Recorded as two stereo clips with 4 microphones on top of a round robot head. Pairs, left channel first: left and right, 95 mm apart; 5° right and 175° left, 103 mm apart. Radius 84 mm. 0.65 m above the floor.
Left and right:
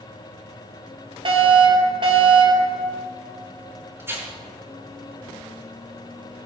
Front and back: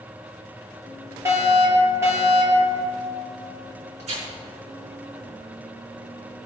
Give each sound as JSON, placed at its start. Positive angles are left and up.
{"t": 1.2, "sound": "a fire alarm", "azimuth_deg": -115, "distance_m": 6.0}
{"t": 4.0, "sound": "tearing paper", "azimuth_deg": -155, "distance_m": 6.5}